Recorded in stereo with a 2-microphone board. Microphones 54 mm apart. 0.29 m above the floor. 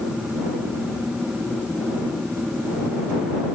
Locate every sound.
Only background noise.